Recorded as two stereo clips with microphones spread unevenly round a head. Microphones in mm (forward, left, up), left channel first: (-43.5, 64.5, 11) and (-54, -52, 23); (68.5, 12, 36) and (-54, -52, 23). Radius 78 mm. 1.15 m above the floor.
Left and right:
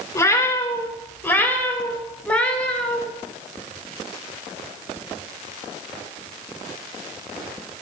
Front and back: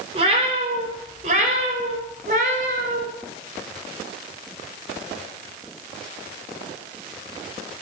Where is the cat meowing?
150° left, 3 m; by 3.0 s 170° left, 4 m.